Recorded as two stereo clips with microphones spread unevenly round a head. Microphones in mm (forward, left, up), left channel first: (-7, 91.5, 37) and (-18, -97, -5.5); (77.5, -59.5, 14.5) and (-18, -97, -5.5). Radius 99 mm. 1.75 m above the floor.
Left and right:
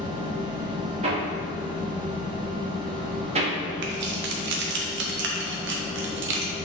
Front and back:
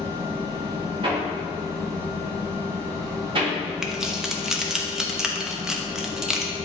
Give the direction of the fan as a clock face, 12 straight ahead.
5 o'clock.